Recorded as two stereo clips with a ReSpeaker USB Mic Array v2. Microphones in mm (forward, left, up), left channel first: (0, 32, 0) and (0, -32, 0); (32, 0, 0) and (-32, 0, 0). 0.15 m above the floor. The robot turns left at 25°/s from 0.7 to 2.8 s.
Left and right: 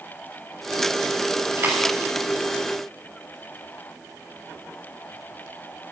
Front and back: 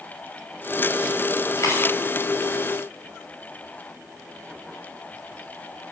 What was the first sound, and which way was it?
A dropped coin, 35° right.